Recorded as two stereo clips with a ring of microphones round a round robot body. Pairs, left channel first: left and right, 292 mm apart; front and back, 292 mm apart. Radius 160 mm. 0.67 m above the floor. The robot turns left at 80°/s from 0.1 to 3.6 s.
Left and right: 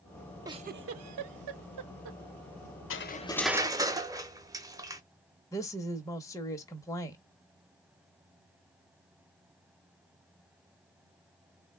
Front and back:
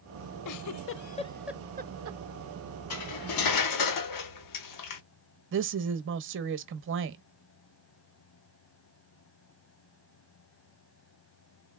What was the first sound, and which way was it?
A giggle, 10° right.